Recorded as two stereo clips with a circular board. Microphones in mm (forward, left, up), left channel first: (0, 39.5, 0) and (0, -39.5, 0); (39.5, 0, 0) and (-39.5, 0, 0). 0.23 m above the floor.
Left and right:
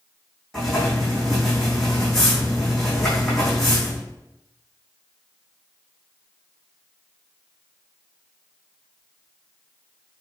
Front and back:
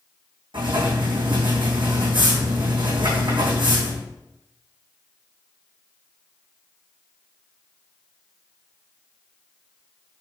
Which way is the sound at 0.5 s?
175° left.